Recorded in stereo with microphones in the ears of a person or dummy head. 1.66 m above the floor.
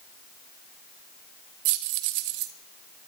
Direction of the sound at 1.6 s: 45° right (ahead or behind).